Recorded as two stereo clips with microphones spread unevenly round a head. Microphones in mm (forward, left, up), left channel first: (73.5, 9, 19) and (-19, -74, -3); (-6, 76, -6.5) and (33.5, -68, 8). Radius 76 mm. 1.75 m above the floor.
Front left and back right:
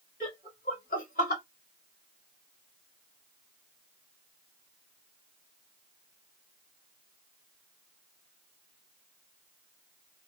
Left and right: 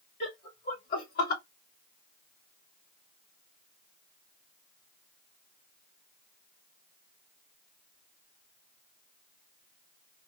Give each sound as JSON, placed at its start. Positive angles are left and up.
{"t": 0.2, "sound": "laughter", "azimuth_deg": 75, "distance_m": 2.0}